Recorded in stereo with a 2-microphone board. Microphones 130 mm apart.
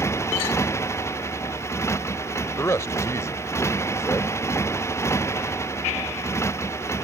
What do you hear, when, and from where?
0.0 s a motorcycle: 20° left (ahead or behind)
2.6 s a man speaking: 25° left (ahead or behind)